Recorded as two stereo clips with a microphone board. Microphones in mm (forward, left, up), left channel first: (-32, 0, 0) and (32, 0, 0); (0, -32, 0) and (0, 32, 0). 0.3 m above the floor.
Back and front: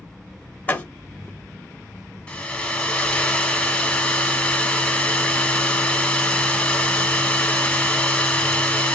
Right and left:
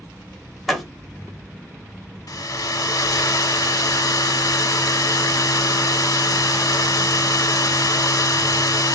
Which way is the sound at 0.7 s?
175° right.